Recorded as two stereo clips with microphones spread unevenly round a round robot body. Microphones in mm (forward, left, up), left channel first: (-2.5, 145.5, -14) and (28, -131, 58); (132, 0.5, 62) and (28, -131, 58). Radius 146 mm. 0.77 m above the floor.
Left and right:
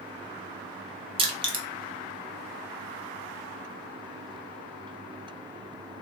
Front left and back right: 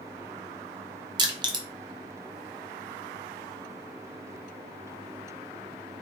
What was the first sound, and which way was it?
Crushing, 165° right.